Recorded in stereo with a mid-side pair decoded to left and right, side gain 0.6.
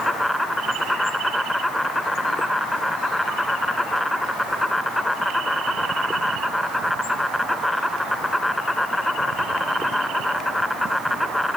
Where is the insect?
5° left.